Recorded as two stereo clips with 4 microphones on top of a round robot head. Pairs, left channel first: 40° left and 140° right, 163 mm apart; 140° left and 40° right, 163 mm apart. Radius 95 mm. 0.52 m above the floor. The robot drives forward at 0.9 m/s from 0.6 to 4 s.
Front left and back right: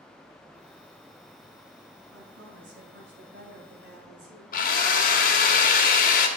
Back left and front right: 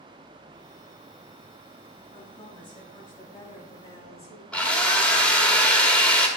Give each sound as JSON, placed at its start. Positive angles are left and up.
{"t": 2.1, "sound": "a woman speaking", "azimuth_deg": -155, "distance_m": 6.5}
{"t": 4.5, "sound": "a drill", "azimuth_deg": 60, "distance_m": 1.9}